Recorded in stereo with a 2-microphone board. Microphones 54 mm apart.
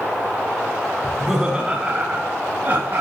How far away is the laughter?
About 1.0 m.